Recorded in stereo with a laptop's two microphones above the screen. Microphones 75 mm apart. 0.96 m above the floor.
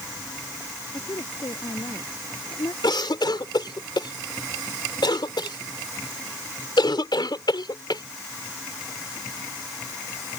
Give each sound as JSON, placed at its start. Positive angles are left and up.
{"t": 0.9, "sound": "a woman speaking", "side_deg": 75}
{"t": 2.8, "sound": "a cough", "side_deg": 75}